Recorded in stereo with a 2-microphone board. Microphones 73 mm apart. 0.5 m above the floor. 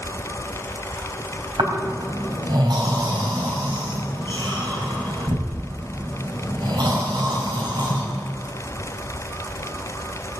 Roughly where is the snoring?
Right.